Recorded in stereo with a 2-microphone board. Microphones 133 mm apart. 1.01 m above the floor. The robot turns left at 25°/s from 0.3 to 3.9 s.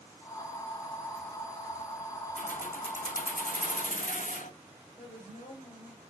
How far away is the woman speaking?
About 5.5 m.